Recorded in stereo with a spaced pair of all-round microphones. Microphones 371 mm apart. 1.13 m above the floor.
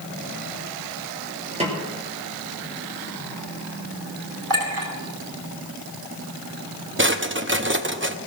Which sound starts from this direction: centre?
A snare drum, at 1.6 s.